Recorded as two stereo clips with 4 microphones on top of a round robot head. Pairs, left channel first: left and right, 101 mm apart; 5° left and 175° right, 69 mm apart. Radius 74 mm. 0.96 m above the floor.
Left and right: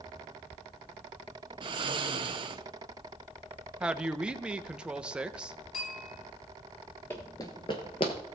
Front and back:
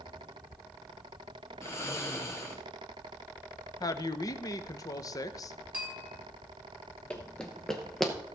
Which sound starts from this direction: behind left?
A bell, at 5.7 s.